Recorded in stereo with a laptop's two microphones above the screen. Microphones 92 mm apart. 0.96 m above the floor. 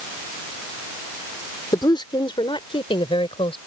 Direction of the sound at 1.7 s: 50° left (ahead or behind).